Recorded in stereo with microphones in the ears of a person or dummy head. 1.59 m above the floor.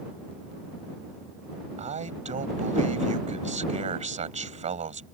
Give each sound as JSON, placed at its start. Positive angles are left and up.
{"t": 1.8, "sound": "a man speaking", "side_deg": -40}